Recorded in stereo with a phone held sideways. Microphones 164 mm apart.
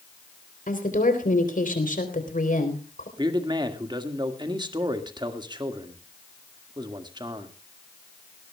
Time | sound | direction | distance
0.7 | a woman speaking | 55° left (ahead or behind) | 3.5 m
3.2 | a man speaking | 25° right (ahead or behind) | 1.7 m